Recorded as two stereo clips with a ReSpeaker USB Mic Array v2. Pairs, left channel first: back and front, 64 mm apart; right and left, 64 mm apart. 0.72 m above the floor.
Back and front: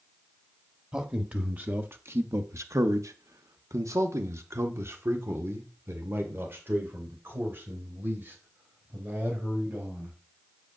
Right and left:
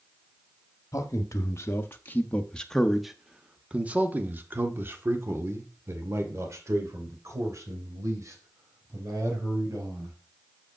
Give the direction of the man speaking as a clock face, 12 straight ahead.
2 o'clock.